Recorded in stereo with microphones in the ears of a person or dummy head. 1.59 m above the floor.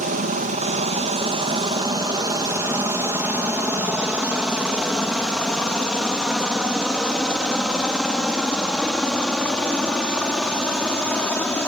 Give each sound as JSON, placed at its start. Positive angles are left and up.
{"t": 0.0, "sound": "a helicopter", "side_deg": -40}